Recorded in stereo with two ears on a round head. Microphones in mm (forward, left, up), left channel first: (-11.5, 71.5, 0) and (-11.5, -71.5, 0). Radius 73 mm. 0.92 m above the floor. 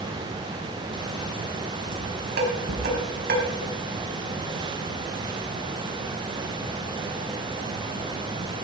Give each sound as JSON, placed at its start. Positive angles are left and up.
{"t": 1.9, "sound": "dishes clattering", "side_deg": -55, "distance_m": 4.5}